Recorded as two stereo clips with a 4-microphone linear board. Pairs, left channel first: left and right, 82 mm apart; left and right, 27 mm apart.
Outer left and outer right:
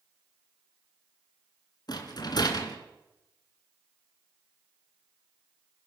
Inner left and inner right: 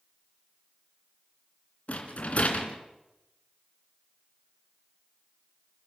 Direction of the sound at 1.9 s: 60° left (ahead or behind).